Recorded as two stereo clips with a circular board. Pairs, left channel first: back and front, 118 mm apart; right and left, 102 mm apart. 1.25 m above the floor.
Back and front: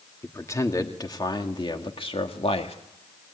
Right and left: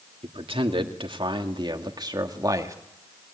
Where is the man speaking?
115° left, 2 m; by 2.8 s 150° left, 2 m.